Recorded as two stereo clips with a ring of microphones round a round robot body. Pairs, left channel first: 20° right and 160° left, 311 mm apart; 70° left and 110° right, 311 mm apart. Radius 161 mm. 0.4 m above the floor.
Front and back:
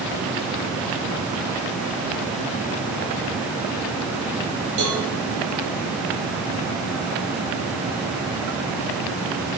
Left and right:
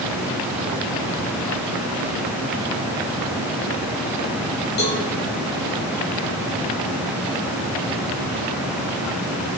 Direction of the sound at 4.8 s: 125° left.